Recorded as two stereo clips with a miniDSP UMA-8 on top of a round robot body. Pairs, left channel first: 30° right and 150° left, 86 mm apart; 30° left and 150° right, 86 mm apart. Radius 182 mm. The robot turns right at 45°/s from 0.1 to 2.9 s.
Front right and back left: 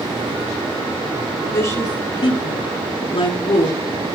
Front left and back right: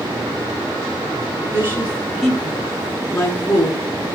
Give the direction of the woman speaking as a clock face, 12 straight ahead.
3 o'clock.